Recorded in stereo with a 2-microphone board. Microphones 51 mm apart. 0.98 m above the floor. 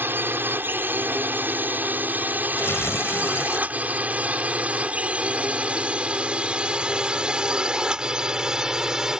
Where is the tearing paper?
55° left (ahead or behind).